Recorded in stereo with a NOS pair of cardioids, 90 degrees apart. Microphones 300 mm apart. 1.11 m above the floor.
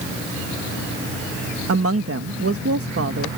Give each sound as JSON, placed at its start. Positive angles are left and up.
{"t": 1.7, "sound": "a woman speaking", "azimuth_deg": -50}